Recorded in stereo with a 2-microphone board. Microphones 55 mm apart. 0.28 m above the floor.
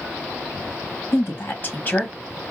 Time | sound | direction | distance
1.1 | a woman speaking | 50° left (ahead or behind) | 1.6 m